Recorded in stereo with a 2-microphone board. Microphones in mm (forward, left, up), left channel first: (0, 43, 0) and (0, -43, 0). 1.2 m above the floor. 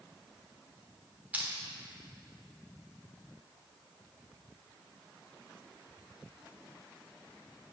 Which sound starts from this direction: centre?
Crushing, at 1.3 s.